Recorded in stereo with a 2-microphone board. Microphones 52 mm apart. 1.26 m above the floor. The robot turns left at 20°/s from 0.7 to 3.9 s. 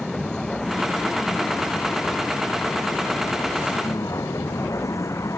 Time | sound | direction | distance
0.0 | a vehicle | 15° left (ahead or behind) | ?